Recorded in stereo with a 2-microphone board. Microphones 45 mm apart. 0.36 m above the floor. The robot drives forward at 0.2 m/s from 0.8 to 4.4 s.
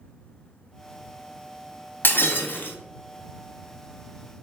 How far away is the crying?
No crying in this recording.